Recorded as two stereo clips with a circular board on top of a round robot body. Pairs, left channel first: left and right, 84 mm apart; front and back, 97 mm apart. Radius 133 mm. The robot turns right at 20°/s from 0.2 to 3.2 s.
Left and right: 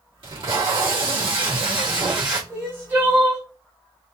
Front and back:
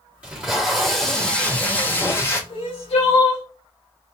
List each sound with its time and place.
0.2 s tape being pulled: 105° right, 2 m; by 2.4 s 60° right, 2 m
2.5 s crying: 30° right, 1.7 m; by 3.4 s 15° right, 1.7 m